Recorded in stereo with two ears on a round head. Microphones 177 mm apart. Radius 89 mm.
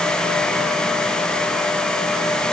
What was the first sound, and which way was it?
Only background noise.